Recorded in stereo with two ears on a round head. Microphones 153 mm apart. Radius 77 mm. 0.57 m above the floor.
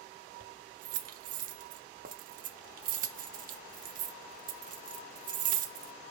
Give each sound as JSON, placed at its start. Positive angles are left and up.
{"t": 0.4, "sound": "keys jangling", "side_deg": -50, "distance_m": 0.8}